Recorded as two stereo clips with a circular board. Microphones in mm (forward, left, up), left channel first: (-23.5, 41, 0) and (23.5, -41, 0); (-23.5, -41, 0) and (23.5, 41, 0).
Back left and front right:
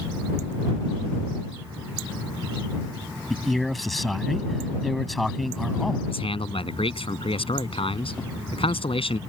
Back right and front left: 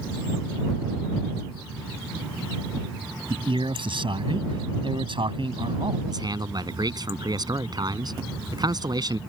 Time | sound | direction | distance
3.3 | a man speaking | 30° left | ?
6.1 | a man speaking | 105° left | ?